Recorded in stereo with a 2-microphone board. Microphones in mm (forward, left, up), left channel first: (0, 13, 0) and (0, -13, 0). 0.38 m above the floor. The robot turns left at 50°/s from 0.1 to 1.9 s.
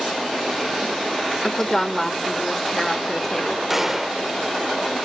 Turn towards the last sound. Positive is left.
turn(degrees=-10)  # may be behind; listen again after turning